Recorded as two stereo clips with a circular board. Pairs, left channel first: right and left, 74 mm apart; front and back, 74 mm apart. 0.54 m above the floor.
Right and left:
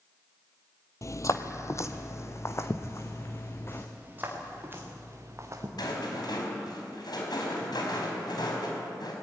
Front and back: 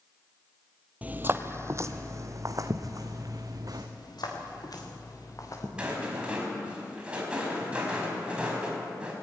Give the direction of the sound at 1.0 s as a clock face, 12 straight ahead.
4 o'clock.